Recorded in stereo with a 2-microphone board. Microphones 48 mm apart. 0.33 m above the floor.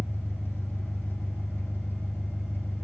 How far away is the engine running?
About 3.5 m.